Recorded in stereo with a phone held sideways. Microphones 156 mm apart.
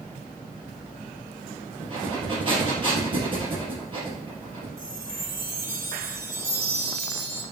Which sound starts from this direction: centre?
A chime, at 4.8 s.